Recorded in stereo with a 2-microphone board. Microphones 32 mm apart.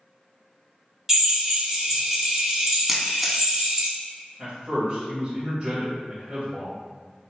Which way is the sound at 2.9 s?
5° right (ahead or behind).